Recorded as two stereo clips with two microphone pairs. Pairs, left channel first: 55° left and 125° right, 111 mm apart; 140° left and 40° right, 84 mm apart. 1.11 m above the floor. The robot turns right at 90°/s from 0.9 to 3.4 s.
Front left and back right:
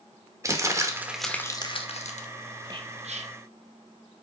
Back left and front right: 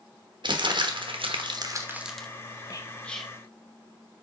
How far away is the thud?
I don't hear a thud.